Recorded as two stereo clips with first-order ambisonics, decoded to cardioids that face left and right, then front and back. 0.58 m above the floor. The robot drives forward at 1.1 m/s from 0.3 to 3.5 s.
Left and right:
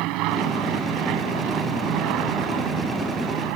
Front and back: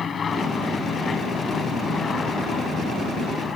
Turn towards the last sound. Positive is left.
turn(degrees=-70)